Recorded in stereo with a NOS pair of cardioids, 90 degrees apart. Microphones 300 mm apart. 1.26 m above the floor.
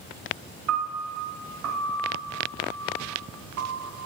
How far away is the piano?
About 1.4 m.